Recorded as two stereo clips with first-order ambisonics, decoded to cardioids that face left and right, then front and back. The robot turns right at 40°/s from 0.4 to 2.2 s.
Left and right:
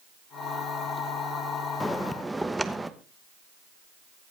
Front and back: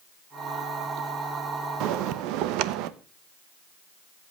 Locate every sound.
1.8 s a bell: 170° left, 1.0 m; by 2.9 s 175° right, 1.0 m